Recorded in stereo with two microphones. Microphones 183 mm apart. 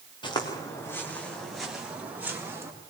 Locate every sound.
0.2 s footsteps: 25° left (ahead or behind), 4 m; by 2.7 s 15° right (ahead or behind), 5.5 m